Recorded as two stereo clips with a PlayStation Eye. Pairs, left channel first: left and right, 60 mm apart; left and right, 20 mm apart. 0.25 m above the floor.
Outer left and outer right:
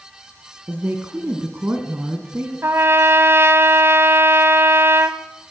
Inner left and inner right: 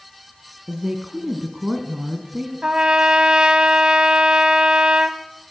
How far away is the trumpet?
About 1.5 m.